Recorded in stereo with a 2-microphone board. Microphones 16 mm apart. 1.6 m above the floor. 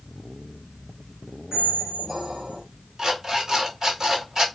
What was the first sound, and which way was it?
A squeak, 30° right (ahead or behind).